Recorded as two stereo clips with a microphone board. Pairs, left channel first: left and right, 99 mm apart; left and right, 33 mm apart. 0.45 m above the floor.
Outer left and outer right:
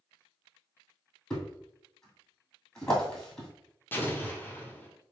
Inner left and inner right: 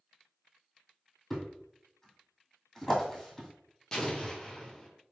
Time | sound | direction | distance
1.3 | a thud | 10° left (ahead or behind) | 1.9 m
3.9 | an explosion | 20° left (ahead or behind) | 1.0 m